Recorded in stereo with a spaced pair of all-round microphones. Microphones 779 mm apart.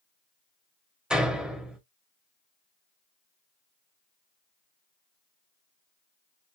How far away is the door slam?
About 1.0 m.